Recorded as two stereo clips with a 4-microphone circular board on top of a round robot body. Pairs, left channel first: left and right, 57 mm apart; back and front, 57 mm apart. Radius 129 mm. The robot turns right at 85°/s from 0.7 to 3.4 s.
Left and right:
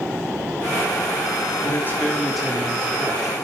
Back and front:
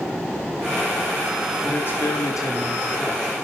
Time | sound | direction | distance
1.6 | a man speaking | 120° left | 2.5 m